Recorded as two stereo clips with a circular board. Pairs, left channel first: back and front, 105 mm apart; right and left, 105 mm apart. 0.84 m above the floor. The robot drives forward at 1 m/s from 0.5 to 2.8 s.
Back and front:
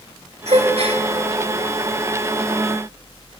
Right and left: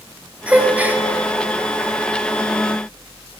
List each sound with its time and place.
0.5 s a gasp: 15° left, 2.5 m